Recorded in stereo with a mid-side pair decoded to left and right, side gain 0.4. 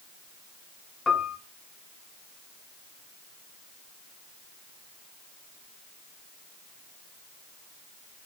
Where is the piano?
40° left, 1.0 m.